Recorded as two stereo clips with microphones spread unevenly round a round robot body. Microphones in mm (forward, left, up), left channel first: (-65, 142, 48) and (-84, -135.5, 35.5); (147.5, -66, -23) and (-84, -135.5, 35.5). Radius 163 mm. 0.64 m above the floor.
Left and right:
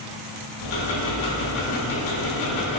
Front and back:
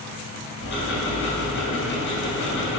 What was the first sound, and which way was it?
Ticking, 70° left.